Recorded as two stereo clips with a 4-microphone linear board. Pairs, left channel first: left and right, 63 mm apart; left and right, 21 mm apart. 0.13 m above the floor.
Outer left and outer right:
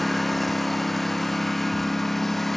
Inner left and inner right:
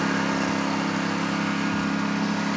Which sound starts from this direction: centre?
A lawn mower, at 0.0 s.